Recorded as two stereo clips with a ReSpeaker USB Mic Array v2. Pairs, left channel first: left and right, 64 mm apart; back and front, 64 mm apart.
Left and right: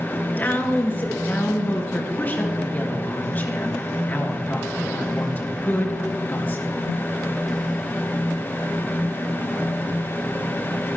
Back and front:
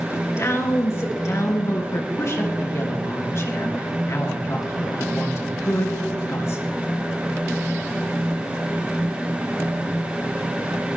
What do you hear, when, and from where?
0.1 s a woman speaking: 145° left, 3.5 m